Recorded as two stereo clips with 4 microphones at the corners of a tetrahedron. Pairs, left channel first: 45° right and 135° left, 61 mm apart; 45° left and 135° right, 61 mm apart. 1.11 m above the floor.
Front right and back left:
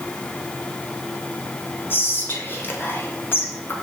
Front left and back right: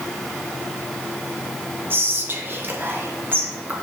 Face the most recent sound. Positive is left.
turn(degrees=-90)